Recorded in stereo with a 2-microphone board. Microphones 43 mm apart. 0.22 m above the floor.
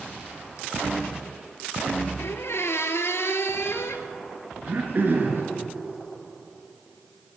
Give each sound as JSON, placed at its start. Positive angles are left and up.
{"t": 2.2, "sound": "a squeak", "side_deg": 75, "distance_m": 1.2}
{"t": 4.7, "sound": "throat clearing", "side_deg": -50, "distance_m": 2.5}